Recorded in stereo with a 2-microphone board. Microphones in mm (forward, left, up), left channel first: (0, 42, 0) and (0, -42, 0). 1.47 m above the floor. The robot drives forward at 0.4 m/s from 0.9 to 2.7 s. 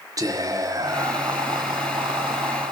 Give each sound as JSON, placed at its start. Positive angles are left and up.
{"t": 0.2, "sound": "whispering", "side_deg": -40, "distance_m": 0.8}